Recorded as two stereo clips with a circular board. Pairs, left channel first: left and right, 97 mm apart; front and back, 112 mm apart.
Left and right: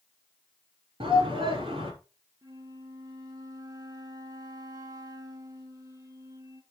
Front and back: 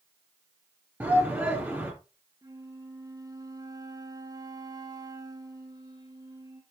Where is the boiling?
No boiling in this recording.